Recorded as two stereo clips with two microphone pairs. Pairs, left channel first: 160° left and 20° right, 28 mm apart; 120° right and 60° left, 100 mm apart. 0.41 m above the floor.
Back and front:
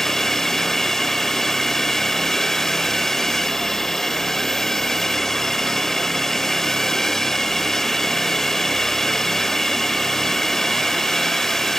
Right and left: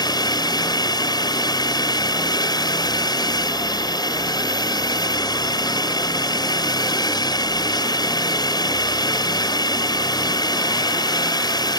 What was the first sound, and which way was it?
A drone, 130° right.